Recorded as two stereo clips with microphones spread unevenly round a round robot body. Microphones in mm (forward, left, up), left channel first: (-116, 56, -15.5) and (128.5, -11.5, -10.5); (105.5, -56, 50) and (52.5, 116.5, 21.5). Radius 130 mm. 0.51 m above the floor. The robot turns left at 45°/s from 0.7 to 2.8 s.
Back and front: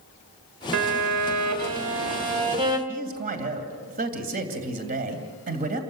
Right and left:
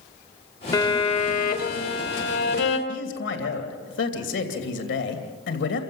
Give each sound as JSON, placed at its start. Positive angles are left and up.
{"t": 0.7, "sound": "a violin", "azimuth_deg": 0, "distance_m": 1.9}
{"t": 2.9, "sound": "a man speaking", "azimuth_deg": -75, "distance_m": 2.5}